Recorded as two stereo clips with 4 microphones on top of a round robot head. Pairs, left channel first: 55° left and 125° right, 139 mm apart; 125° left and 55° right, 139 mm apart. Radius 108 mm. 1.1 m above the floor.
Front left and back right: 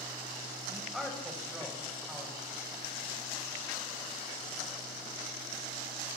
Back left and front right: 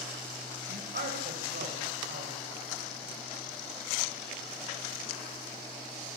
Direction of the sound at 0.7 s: 40° right.